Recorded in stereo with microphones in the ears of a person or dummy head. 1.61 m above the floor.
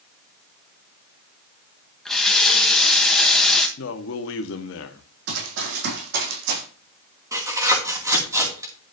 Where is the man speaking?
75° left (ahead or behind), 1.2 m.